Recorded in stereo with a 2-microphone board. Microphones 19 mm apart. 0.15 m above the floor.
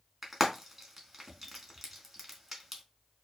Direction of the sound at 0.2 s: 5° right (ahead or behind).